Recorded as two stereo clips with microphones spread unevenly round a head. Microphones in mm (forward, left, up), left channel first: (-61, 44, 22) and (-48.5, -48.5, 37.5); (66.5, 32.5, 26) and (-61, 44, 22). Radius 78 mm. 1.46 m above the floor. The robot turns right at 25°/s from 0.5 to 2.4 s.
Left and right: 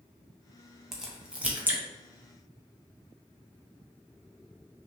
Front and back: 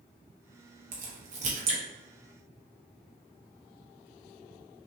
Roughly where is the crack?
Behind.